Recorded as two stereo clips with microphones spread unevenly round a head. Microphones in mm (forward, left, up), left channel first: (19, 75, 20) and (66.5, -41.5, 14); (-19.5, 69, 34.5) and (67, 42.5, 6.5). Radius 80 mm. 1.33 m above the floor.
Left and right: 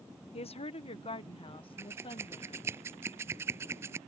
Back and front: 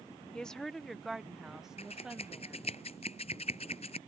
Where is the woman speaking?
75° left; by 2.6 s 60° left.